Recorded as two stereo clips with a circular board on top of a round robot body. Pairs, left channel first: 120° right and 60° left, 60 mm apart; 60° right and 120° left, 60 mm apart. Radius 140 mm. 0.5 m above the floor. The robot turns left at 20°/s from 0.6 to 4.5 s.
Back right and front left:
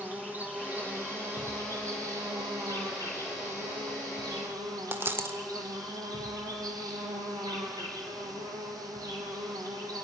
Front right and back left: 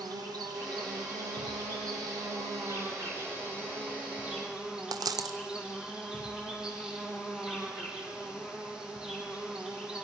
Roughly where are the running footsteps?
No running footsteps in this recording.